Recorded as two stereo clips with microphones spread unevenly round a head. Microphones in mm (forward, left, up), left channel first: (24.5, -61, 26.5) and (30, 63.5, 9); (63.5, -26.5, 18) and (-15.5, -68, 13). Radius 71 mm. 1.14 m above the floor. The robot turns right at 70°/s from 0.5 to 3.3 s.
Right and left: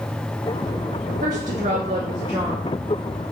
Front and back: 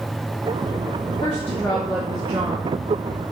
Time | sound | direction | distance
1.2 | a woman speaking | 75° left | 0.8 m